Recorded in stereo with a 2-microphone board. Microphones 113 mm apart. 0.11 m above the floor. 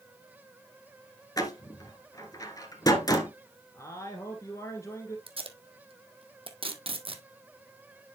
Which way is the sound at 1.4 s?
35° left (ahead or behind).